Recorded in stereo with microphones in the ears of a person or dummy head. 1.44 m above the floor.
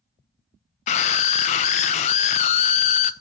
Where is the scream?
35° left (ahead or behind), 0.8 m.